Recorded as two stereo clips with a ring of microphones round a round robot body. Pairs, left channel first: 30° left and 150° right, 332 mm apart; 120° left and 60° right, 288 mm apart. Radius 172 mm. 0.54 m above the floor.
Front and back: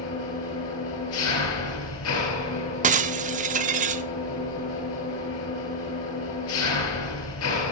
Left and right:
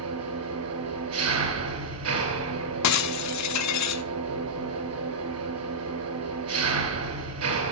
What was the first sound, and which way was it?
An engine running, 20° right.